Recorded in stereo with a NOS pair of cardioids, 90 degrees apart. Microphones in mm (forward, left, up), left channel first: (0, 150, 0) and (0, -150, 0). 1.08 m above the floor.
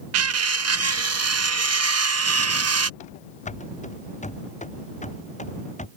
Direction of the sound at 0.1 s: 60° right.